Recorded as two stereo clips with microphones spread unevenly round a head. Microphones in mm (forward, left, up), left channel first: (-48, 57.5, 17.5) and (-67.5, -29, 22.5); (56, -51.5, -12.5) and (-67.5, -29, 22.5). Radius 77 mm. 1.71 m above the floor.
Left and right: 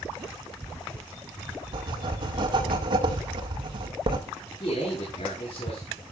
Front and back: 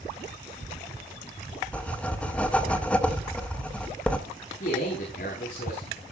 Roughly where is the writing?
Right.